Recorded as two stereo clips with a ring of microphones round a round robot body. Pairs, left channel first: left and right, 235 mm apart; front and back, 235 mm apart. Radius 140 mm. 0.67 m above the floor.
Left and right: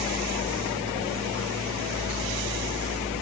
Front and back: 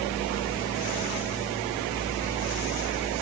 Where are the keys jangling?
No keys jangling in this recording.